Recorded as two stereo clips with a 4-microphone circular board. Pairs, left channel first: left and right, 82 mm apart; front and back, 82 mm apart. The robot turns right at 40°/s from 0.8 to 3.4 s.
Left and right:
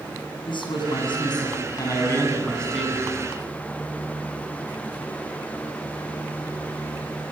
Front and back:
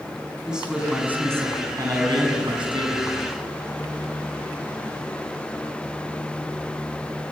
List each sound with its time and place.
0.5 s a man speaking: 100° left, 6.5 m; by 3.1 s 170° right, 6.5 m